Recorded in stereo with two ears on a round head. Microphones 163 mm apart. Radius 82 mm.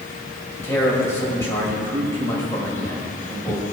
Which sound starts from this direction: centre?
A man speaking, at 0.6 s.